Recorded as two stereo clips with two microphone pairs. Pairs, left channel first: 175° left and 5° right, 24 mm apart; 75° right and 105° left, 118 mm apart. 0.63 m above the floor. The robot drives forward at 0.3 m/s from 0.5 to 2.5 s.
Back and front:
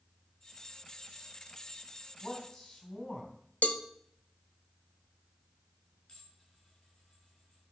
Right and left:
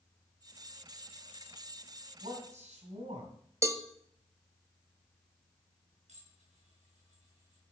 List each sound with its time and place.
2.2 s a man speaking: 120° left, 4 m
3.6 s a cowbell: 170° left, 0.8 m
6.1 s dishes clattering: 130° left, 6 m